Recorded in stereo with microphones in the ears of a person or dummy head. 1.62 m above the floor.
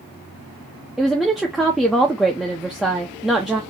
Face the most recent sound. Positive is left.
turn(degrees=5)  # may be behind; listen again after turning